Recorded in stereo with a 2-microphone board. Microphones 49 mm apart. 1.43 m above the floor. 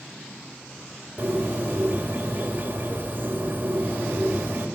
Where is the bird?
40° right (ahead or behind), 2.5 m.